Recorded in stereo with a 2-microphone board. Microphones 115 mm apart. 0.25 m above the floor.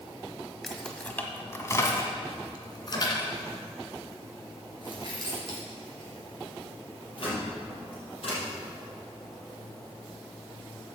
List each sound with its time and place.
0.6 s keys jangling: centre (ahead or behind), 0.9 m; by 8.4 s 55° left (ahead or behind), 5 m